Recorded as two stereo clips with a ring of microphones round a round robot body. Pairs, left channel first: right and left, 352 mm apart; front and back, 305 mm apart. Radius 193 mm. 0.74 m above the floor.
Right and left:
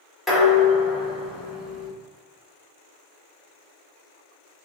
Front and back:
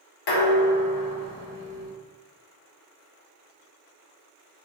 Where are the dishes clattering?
Straight ahead, 1.2 m.